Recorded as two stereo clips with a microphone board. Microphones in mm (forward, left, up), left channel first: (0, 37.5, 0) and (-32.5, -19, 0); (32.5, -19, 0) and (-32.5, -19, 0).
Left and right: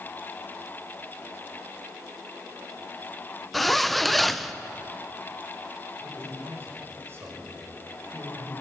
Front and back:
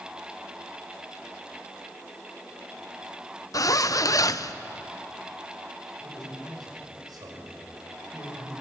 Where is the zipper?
30° right, 0.7 m.